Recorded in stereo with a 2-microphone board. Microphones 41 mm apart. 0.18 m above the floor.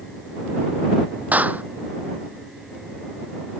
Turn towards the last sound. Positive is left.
turn(degrees=-40)  # may be behind; listen again after turning